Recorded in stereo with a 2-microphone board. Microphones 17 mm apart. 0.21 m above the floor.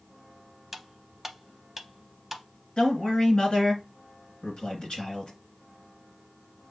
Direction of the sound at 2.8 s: 55° left (ahead or behind).